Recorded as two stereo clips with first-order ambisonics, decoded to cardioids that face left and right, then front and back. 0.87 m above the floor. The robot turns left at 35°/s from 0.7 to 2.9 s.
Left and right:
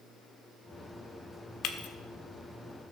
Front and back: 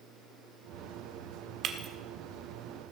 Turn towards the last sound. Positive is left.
turn(degrees=85)